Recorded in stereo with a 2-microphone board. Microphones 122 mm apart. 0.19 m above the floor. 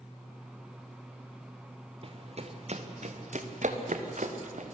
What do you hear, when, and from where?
2.0 s running footsteps: 50° right (ahead or behind), 2.5 m; by 4.8 s 80° right, 3 m